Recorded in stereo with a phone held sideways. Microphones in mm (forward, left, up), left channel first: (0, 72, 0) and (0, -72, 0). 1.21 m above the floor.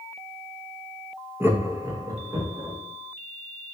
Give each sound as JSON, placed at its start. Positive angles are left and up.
{"t": 1.4, "sound": "laughter", "side_deg": -15, "distance_m": 0.7}